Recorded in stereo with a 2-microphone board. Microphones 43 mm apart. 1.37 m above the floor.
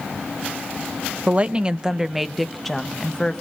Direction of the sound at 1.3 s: 35° right (ahead or behind).